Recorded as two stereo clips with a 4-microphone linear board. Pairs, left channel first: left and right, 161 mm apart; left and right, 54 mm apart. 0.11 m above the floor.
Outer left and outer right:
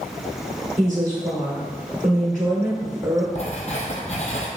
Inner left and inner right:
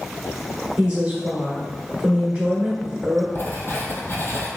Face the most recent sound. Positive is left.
turn(degrees=50)  # may be behind; listen again after turning